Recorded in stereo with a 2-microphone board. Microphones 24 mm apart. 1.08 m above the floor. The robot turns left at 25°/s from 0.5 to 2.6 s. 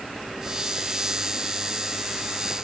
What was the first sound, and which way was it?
Only background noise.